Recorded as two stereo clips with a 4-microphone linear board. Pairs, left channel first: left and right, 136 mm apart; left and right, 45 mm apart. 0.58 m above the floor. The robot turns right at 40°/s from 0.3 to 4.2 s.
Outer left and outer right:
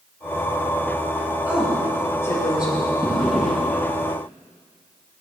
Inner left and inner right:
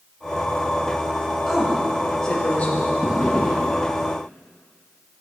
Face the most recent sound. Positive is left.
turn(degrees=30)